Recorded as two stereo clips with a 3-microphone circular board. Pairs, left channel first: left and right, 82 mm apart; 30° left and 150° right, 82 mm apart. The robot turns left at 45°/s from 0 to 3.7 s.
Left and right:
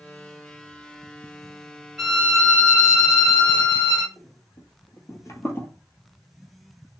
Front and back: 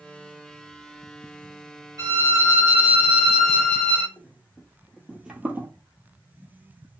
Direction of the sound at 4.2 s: 90° left.